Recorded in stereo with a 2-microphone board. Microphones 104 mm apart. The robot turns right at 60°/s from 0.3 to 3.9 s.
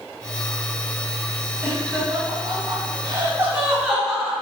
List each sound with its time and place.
1.6 s laughter: 25° right (ahead or behind), 1.4 m; by 4.3 s 5° right (ahead or behind), 1.4 m